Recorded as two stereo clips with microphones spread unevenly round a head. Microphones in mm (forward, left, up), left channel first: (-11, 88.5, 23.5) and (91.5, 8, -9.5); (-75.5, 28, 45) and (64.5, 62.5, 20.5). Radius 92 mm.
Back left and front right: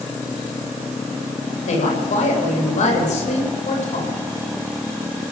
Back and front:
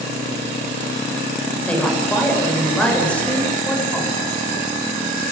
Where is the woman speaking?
115° left, 7.5 m.